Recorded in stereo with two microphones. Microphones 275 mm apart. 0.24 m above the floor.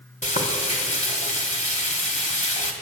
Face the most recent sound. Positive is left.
turn(degrees=25)  # may be behind; listen again after turning